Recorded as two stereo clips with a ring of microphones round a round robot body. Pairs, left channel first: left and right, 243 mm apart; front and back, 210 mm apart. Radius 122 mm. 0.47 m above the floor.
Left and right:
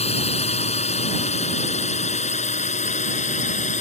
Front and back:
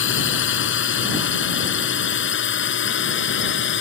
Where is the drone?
25° left; by 3.8 s 30° left.